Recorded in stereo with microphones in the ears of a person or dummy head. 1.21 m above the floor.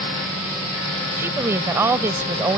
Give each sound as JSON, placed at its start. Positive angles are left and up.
{"t": 1.2, "sound": "a woman speaking", "side_deg": -15}